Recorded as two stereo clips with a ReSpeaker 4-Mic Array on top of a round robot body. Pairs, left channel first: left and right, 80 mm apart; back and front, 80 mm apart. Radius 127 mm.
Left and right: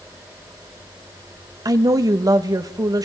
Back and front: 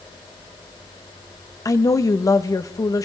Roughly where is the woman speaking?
Behind right.